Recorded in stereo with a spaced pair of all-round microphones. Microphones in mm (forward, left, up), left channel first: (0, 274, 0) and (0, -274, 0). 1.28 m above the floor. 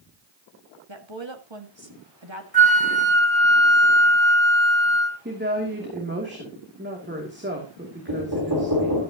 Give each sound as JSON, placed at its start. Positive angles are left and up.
{"t": 0.9, "sound": "a woman speaking", "side_deg": -50, "distance_m": 2.0}
{"t": 2.5, "sound": "a flute", "side_deg": 40, "distance_m": 3.0}
{"t": 5.2, "sound": "a woman speaking", "side_deg": -20, "distance_m": 2.5}
{"t": 8.1, "sound": "knocking", "side_deg": -40, "distance_m": 4.0}